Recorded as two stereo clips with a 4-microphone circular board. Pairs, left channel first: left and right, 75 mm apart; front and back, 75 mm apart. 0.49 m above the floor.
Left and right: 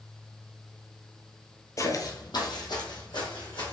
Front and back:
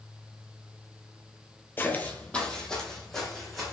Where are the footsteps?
55° left, 0.7 m; by 3.7 s 85° left, 2.0 m.